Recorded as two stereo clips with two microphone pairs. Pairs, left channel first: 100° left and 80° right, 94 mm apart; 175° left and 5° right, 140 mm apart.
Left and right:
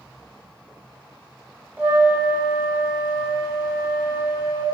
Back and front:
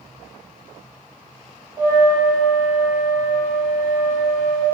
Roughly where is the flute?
Ahead right.